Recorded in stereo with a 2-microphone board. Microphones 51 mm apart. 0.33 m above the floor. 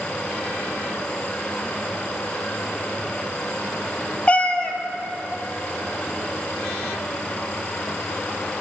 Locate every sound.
4.3 s a cat meowing: 30° left (ahead or behind), 0.7 m